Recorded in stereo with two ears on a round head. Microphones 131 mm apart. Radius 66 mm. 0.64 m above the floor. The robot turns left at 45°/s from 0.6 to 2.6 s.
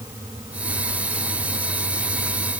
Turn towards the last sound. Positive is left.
No sound to turn to.